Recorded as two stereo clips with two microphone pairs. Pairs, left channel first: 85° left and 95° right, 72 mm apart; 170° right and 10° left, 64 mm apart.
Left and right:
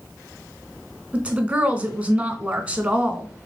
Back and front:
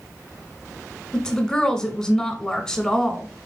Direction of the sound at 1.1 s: 115° right.